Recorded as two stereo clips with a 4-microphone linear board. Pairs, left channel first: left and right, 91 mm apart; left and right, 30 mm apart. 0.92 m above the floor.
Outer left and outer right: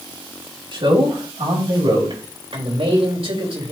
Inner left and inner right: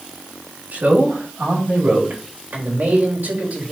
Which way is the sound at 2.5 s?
75° right (ahead or behind).